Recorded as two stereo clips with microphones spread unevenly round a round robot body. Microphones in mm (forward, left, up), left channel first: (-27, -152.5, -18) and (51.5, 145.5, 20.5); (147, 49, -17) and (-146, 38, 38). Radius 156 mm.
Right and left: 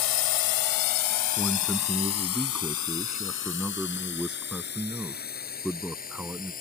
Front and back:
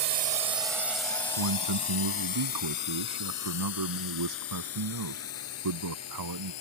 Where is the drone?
115° right; by 6.6 s 40° right.